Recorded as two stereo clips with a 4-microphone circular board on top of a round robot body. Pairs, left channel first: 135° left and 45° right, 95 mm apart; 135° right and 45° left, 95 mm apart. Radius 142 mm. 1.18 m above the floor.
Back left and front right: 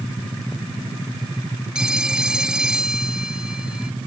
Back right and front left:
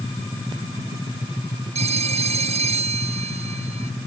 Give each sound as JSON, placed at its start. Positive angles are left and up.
{"t": 1.8, "sound": "a phone ringing", "azimuth_deg": 40}